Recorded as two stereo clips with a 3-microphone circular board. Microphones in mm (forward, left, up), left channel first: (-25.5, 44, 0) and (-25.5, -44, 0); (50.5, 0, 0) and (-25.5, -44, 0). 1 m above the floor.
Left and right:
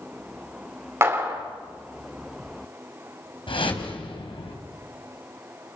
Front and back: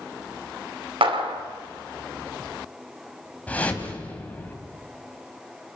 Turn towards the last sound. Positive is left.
turn(degrees=105)